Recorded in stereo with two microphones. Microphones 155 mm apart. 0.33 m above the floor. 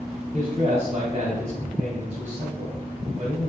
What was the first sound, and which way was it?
A man speaking, 50° right (ahead or behind).